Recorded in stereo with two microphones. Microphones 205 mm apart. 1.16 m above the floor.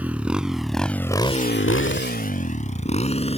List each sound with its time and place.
0.0 s a motorcycle: 5° right (ahead or behind); by 3.4 s 30° left (ahead or behind)